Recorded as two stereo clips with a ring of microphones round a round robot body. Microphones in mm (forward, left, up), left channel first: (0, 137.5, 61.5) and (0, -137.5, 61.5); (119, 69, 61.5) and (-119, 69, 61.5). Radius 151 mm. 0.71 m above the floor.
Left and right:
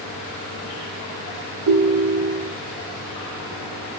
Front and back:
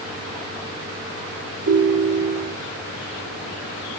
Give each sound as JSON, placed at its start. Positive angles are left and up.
{"t": 1.7, "sound": "a ringtone", "azimuth_deg": -125, "distance_m": 1.0}